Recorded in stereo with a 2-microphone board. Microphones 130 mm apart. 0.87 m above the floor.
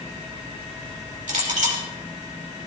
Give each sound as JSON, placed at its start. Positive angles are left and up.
{"t": 1.3, "sound": "a clink", "side_deg": -70, "distance_m": 2.5}